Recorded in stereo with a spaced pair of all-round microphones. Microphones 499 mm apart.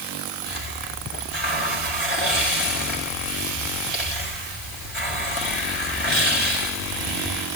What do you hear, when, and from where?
0.5 s a hiss: 70° left (ahead or behind), 7.5 m